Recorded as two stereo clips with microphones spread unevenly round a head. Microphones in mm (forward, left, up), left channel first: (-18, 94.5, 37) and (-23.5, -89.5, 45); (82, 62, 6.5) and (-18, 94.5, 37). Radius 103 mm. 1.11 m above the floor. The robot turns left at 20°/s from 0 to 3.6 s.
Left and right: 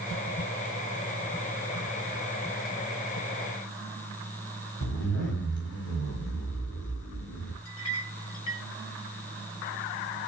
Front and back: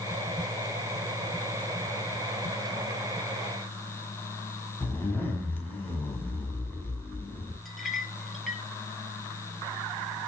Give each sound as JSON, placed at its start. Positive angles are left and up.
{"t": 4.8, "sound": "a zipper", "azimuth_deg": 55, "distance_m": 6.5}
{"t": 7.7, "sound": "a clink", "azimuth_deg": 75, "distance_m": 3.5}